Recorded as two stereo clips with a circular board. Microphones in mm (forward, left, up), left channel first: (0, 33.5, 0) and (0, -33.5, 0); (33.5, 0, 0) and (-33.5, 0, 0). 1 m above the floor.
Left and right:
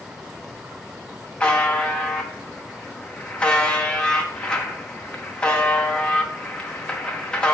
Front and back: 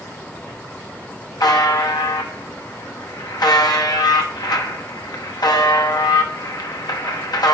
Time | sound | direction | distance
1.4 | a buzzer | 15° left | 0.9 m